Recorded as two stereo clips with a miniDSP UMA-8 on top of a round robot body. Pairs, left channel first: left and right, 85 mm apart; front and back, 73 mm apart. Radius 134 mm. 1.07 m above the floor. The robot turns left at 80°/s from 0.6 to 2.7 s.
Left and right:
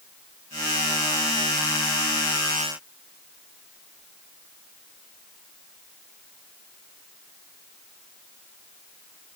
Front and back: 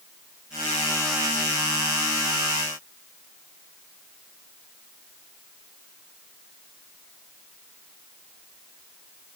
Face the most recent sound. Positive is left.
No sound to turn to.